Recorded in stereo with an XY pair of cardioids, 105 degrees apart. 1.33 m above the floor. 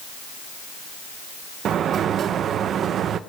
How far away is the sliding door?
About 0.8 m.